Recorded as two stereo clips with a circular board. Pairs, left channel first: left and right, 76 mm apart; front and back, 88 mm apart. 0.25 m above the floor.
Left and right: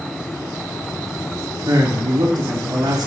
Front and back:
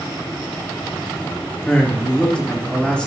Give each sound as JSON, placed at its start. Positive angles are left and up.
{"t": 1.7, "sound": "a man speaking", "azimuth_deg": -75, "distance_m": 3.5}